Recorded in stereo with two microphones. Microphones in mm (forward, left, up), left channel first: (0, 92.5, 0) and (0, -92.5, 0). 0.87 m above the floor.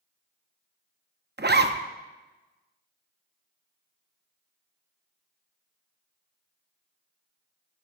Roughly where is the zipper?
Right.